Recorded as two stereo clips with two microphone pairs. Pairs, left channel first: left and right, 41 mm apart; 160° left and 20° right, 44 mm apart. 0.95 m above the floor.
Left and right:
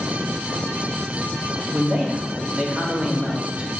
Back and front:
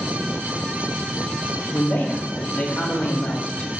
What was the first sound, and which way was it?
A man speaking, 155° right.